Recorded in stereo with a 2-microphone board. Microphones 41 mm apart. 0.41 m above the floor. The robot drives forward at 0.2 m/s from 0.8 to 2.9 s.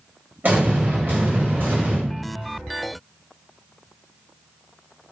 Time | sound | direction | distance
0.4 | an explosion | 55° right (ahead or behind) | 1.6 m